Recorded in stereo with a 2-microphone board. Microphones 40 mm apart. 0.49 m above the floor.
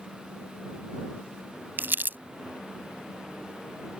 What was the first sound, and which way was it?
Crumpling, 55° right (ahead or behind).